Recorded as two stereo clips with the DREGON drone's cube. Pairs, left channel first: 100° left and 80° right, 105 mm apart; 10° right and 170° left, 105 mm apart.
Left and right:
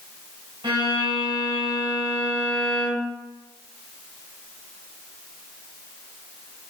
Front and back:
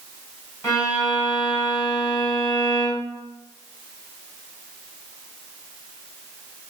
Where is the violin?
55° right, 1.4 m.